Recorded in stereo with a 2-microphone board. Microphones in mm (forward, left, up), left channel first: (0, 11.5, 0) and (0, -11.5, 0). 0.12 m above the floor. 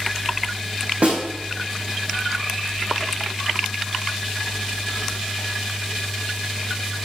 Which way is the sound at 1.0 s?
75° right (ahead or behind).